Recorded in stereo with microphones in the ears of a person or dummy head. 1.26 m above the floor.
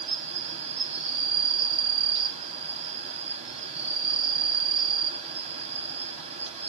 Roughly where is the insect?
Right.